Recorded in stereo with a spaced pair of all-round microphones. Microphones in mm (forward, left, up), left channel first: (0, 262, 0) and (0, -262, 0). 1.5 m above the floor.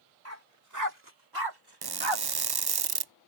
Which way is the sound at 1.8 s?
45° right (ahead or behind).